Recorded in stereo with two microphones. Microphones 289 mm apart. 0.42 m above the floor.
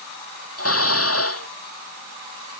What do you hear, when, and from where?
0.6 s dishes clattering: 55° left (ahead or behind)